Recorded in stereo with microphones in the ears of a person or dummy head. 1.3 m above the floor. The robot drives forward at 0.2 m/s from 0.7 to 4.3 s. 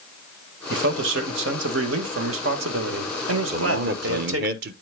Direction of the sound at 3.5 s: 50° right (ahead or behind).